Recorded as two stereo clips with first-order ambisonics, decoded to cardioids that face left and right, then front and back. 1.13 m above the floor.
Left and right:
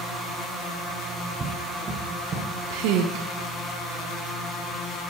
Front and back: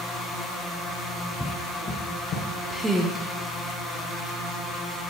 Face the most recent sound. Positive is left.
turn(degrees=-100)